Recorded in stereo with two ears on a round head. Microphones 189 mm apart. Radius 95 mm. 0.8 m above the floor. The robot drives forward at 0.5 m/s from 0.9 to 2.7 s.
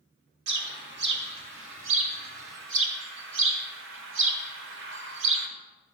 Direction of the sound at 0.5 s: 55° right (ahead or behind).